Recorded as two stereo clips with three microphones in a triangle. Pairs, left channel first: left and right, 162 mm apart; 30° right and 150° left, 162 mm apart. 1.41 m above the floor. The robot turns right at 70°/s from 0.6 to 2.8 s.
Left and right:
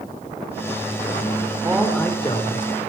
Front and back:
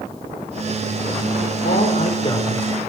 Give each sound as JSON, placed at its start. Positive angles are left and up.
{"t": 1.6, "sound": "a man speaking", "azimuth_deg": -15, "distance_m": 4.5}